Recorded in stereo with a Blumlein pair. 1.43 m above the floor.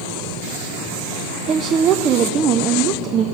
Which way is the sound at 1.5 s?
30° right.